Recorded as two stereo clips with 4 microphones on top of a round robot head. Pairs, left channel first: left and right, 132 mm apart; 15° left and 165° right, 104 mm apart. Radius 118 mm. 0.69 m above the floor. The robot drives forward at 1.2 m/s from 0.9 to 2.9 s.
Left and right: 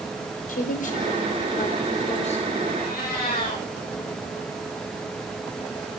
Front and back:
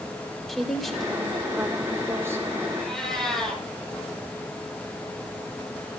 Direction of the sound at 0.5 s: 100° left.